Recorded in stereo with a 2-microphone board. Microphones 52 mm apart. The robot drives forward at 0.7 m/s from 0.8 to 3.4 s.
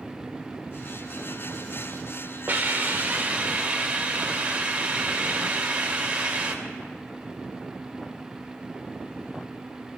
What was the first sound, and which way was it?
A hiss, 35° right (ahead or behind).